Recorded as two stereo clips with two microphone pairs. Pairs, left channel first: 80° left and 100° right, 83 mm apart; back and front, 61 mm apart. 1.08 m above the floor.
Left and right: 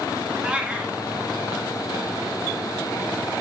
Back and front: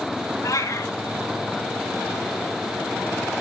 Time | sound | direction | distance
0.4 | a cat meowing | 175° right | 2 m